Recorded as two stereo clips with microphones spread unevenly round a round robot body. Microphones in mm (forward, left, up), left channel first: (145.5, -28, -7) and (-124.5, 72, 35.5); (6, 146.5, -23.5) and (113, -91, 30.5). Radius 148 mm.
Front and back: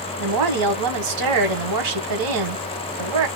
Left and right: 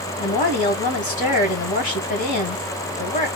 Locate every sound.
0.2 s a woman speaking: 170° left, 1.8 m